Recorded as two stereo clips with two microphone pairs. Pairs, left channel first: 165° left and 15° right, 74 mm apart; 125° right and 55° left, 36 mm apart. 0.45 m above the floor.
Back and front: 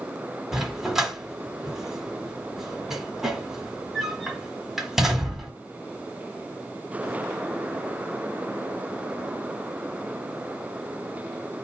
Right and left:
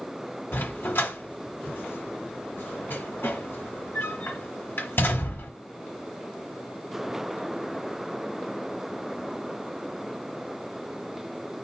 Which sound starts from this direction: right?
A dog barking, at 0.5 s.